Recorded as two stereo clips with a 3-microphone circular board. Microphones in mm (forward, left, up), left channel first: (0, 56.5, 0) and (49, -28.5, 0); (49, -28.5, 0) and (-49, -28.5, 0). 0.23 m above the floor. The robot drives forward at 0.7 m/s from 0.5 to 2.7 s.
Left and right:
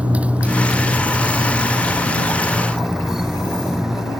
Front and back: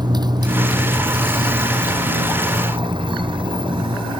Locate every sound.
0.0 s a motorcycle: 135° right; by 4.2 s 145° right